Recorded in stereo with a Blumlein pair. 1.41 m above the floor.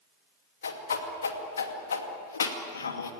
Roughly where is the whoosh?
Left.